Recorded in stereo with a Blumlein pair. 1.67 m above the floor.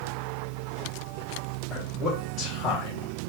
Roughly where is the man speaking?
Ahead left.